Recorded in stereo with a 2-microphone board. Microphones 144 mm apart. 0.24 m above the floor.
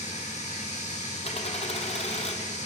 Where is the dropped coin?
45° left (ahead or behind), 1.4 m.